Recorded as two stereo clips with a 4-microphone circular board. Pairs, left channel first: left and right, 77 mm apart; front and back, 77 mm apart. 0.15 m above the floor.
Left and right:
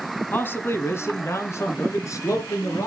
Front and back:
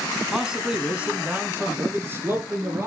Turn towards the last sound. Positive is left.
turn(degrees=130)